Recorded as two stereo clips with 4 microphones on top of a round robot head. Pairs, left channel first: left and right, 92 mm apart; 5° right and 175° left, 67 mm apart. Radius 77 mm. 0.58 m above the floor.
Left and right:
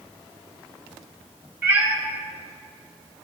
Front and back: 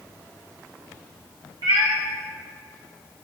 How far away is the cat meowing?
About 2 m.